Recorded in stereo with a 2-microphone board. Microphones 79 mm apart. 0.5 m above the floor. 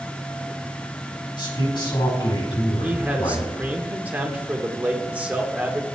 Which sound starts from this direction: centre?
A man speaking, at 2.8 s.